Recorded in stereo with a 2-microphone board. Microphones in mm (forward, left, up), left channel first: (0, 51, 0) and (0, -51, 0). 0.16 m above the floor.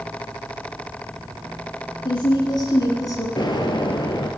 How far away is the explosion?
About 1.4 m.